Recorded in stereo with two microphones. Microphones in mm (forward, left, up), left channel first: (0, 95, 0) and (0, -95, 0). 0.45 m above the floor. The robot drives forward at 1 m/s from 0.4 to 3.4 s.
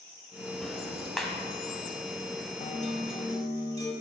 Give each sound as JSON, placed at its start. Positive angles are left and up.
{"t": 0.6, "sound": "ticking", "side_deg": 0, "distance_m": 0.7}
{"t": 2.6, "sound": "a guitar", "side_deg": 45, "distance_m": 0.5}